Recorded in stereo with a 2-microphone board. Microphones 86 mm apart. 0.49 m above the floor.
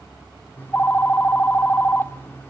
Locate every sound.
0.6 s a phone ringing: 25° left (ahead or behind), 0.5 m